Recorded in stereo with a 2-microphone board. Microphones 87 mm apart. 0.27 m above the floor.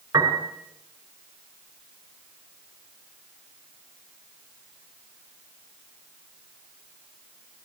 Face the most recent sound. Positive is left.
turn(degrees=-35)  # may be behind; listen again after turning